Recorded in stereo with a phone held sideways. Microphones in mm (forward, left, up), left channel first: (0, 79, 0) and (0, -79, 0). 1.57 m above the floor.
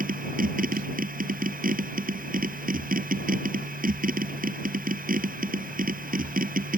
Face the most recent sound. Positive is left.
turn(degrees=-60)  # may be behind; listen again after turning